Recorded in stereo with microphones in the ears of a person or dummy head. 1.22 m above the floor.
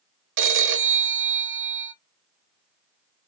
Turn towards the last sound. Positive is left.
turn(degrees=-60)  # may be behind; listen again after turning